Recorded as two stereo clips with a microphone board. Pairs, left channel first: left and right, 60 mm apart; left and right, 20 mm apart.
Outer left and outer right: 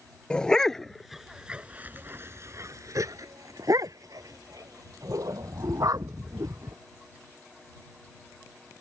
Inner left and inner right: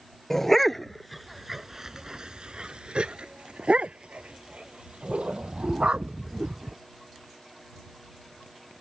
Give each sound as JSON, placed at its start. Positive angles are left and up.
{"t": 0.3, "sound": "a dog barking", "side_deg": 15}